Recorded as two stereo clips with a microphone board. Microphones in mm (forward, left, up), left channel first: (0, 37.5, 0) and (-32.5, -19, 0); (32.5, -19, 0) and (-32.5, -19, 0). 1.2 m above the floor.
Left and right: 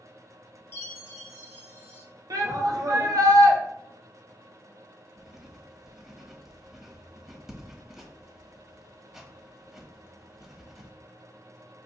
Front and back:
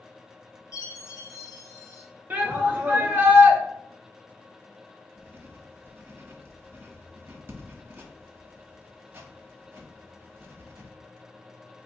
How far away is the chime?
About 1.3 m.